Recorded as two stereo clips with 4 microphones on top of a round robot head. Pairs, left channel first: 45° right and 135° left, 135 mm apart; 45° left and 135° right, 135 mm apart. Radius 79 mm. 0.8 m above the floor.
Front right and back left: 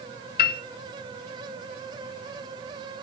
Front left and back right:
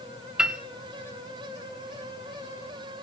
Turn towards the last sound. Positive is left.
turn(degrees=-50)